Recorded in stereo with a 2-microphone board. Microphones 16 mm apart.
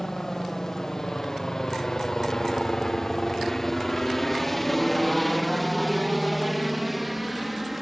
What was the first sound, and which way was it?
A helicopter, 30° left (ahead or behind).